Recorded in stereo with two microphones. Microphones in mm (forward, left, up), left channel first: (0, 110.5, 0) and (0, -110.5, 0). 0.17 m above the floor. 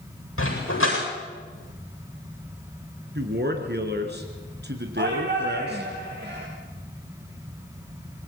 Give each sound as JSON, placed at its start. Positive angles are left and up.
{"t": 0.4, "sound": "a dog barking", "side_deg": 70, "distance_m": 7.5}
{"t": 3.1, "sound": "a man speaking", "side_deg": -50, "distance_m": 3.0}
{"t": 5.0, "sound": "a shout", "side_deg": -55, "distance_m": 4.5}